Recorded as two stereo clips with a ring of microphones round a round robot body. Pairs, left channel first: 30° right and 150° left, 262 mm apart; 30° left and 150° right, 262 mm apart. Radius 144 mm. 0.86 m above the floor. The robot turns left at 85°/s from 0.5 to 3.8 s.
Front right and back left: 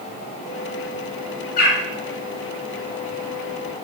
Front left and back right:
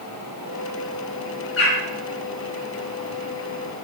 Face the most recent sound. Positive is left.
turn(degrees=155)